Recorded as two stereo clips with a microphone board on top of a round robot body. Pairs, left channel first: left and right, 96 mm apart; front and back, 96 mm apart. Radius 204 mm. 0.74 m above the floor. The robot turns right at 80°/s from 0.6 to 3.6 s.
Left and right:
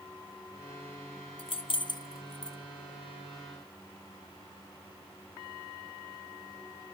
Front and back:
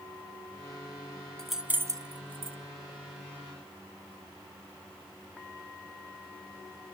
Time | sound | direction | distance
1.4 | keys jangling | 80° left | 0.7 m